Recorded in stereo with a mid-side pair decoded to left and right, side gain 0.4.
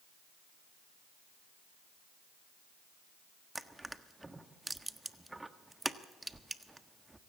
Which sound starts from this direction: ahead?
Crushing, at 3.5 s.